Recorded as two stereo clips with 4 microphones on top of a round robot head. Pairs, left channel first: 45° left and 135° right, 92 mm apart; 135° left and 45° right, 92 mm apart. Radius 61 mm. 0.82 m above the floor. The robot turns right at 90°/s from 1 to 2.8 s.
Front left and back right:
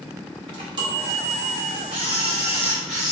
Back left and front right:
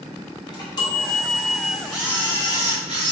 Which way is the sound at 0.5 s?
175° right.